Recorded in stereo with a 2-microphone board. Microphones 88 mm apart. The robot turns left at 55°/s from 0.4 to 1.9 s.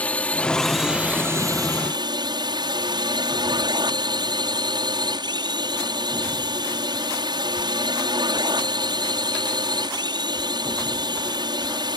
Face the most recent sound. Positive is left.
turn(degrees=-65)